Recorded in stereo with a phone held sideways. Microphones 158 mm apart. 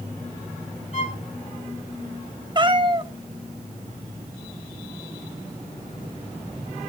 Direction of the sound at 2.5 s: 30° right (ahead or behind).